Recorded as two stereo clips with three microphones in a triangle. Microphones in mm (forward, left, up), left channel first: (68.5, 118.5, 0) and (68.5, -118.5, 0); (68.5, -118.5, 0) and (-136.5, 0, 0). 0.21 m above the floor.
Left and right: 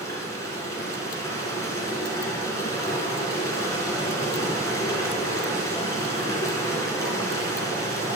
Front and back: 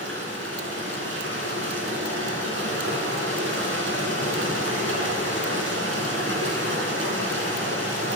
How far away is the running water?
About 2.5 m.